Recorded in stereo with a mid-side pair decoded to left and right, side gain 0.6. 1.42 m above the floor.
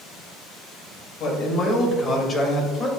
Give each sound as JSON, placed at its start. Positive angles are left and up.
{"t": 1.2, "sound": "a man speaking", "azimuth_deg": 55, "distance_m": 2.0}